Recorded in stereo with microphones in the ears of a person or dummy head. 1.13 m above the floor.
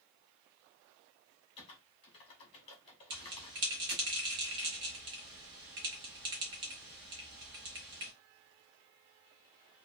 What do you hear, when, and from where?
1.6 s typing on a keyboard: 30° left (ahead or behind), 0.9 m
3.1 s a bell: 25° right (ahead or behind), 1.0 m